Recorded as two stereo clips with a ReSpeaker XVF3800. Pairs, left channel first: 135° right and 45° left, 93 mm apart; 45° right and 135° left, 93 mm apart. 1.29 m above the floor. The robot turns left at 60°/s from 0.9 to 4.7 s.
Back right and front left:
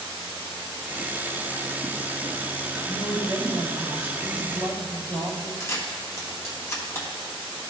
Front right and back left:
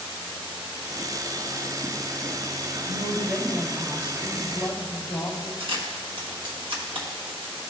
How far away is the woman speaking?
About 1.9 m.